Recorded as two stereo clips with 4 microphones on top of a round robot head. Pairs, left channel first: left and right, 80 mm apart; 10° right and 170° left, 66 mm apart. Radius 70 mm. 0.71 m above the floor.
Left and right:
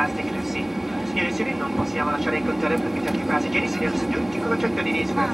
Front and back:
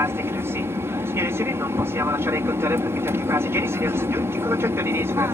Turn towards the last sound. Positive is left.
turn(degrees=-175)